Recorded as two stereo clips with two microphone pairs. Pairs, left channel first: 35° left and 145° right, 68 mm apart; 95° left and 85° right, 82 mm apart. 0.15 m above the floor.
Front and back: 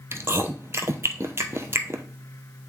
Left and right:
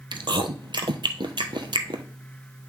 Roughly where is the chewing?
Right.